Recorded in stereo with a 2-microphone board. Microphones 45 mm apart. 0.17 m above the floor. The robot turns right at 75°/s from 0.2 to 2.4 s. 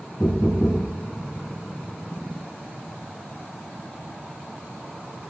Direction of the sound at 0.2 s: 90° left.